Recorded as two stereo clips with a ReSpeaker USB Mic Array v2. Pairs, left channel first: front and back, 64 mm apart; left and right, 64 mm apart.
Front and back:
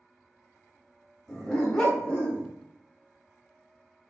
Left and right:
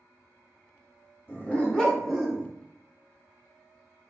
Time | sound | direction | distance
1.3 | a dog barking | 80° left | 0.9 m